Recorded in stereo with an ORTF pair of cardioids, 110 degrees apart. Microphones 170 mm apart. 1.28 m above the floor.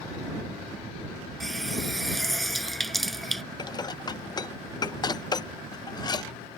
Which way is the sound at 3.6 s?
25° left.